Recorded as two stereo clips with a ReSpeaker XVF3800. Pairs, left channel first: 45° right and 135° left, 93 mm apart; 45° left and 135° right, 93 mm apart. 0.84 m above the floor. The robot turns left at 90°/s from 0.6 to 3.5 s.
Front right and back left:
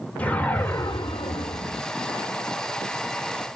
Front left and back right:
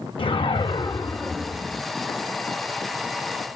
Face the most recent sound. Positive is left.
turn(degrees=130)